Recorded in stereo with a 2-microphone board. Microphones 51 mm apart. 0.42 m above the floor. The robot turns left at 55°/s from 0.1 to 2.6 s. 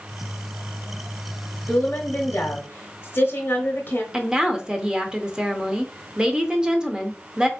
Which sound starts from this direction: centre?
A woman speaking, at 4.1 s.